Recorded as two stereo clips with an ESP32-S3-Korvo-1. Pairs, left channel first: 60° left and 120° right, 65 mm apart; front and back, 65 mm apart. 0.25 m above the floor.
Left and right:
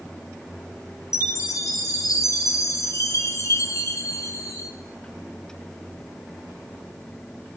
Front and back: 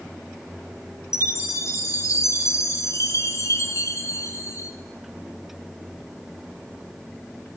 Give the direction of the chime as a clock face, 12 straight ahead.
11 o'clock.